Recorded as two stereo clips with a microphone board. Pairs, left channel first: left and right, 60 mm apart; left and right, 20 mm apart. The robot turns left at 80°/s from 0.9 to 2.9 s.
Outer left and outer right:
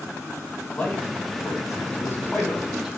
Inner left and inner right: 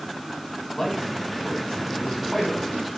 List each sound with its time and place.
0.7 s a man speaking: 20° left (ahead or behind), 2.0 m; by 3.0 s centre (ahead or behind), 2.0 m